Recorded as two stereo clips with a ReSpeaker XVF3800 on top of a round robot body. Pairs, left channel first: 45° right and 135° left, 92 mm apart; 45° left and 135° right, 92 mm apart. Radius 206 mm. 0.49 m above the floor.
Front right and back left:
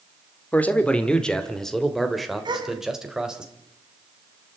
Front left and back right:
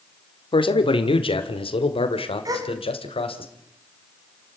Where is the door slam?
No door slam in this recording.